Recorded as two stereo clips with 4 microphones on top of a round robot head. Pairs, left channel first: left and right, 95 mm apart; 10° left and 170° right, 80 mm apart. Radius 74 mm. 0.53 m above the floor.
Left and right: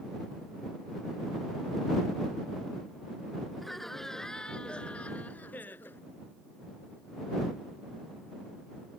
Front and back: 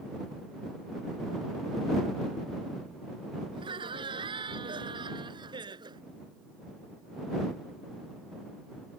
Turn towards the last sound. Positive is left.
turn(degrees=165)